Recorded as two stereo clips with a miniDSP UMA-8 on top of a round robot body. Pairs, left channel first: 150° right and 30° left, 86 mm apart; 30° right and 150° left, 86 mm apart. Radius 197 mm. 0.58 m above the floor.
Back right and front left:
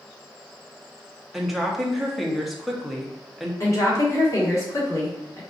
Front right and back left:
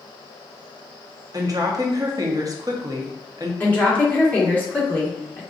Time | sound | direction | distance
1.3 | a woman speaking | 120° left | 1.1 m
3.6 | a woman speaking | 100° right | 1.7 m